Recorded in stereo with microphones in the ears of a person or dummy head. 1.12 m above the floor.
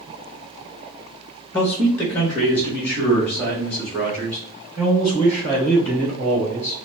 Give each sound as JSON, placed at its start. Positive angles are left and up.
{"t": 1.5, "sound": "a man speaking", "side_deg": 10, "distance_m": 1.3}